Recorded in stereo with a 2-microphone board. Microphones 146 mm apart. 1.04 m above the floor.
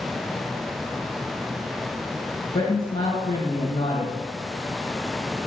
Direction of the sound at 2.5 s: 50° left (ahead or behind).